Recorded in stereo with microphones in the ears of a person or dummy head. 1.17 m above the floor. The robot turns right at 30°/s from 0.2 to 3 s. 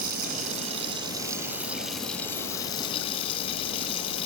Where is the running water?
50° right, 2.5 m; by 4.3 s 35° left, 2.5 m.